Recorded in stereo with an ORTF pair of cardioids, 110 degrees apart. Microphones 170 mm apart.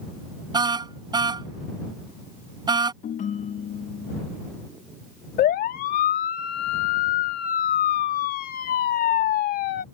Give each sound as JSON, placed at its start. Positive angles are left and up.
{"t": 0.5, "sound": "a car horn", "azimuth_deg": -25}
{"t": 3.0, "sound": "a ringtone", "azimuth_deg": 50}
{"t": 5.4, "sound": "a siren", "azimuth_deg": 65}